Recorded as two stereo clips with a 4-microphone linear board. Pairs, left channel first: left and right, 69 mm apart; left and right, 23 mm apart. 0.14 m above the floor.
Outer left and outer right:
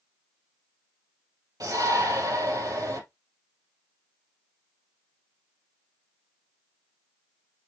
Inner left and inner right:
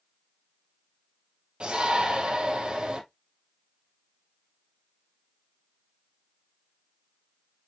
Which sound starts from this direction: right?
A shout, at 1.6 s.